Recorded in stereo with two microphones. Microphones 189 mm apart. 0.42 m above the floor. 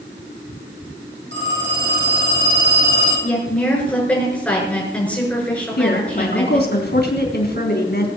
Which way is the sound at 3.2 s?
5° left (ahead or behind).